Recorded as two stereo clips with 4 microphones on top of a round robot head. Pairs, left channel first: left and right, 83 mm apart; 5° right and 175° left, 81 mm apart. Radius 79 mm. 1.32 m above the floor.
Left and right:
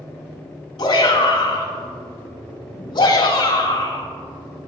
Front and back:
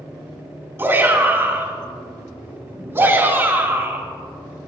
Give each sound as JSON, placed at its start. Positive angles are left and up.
{"t": 0.8, "sound": "a shout", "azimuth_deg": 115, "distance_m": 4.5}